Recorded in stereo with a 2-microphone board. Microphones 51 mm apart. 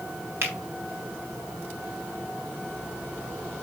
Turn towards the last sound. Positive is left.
turn(degrees=-60)  # may be behind; listen again after turning